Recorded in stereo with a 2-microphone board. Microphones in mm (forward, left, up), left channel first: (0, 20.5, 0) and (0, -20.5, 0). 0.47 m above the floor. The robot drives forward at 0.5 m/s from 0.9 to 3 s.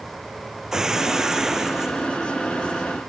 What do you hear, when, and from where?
0.7 s breaking glass: 15° right (ahead or behind)